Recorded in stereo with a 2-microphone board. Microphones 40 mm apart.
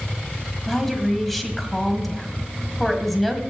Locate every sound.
0.7 s a woman speaking: 5° left (ahead or behind), 1.7 m